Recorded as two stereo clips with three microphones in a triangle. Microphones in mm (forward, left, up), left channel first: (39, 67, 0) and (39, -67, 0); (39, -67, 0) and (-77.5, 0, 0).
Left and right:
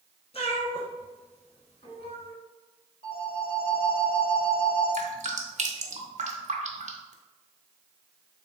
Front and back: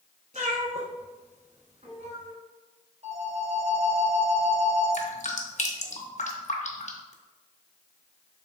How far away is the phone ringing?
About 1.4 m.